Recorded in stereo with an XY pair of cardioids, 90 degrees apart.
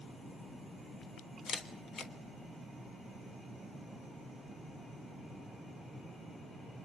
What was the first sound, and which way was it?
A camera shutter, 65° left.